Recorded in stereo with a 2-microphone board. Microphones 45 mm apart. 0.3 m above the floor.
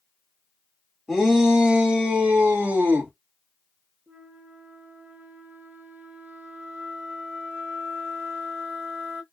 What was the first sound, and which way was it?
A shout, 10° right (ahead or behind).